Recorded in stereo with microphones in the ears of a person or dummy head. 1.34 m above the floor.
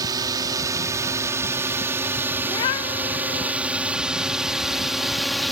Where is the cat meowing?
15° left (ahead or behind).